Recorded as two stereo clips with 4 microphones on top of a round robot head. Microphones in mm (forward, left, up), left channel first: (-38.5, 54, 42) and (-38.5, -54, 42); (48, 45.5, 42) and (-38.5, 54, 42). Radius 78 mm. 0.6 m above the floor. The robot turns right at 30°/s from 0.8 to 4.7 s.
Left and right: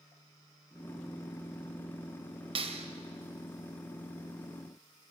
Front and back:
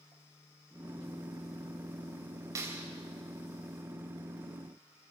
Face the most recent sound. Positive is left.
turn(degrees=-55)